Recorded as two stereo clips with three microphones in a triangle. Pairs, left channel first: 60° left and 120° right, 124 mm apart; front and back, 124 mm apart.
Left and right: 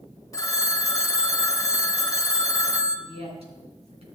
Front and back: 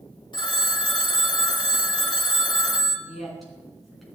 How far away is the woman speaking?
About 3.5 m.